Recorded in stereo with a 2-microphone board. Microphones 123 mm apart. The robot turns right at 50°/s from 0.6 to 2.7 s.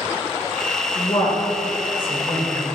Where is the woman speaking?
40° left (ahead or behind), 1.5 m; by 2.6 s 25° left (ahead or behind), 1.5 m.